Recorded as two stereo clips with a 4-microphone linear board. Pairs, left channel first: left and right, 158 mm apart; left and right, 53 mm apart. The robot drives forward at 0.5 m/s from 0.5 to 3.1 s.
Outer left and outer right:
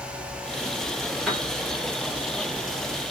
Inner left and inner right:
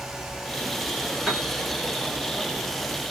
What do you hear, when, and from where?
1.3 s a piano: 5° left (ahead or behind), 1.6 m